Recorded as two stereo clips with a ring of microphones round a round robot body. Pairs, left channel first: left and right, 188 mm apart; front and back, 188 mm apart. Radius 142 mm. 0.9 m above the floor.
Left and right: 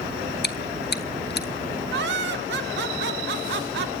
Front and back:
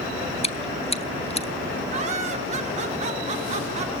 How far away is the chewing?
About 1.0 m.